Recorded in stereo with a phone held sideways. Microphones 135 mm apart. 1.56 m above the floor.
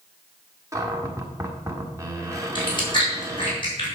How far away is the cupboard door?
About 1.2 m.